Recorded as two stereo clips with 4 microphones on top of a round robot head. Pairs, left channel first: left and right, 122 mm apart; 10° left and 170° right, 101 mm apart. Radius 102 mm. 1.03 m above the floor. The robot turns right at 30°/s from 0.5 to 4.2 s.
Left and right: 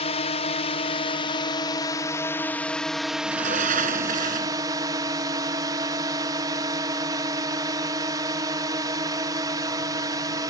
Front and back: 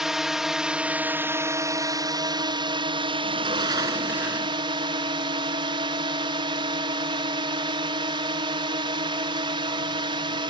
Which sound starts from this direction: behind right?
A sliding door, at 3.2 s.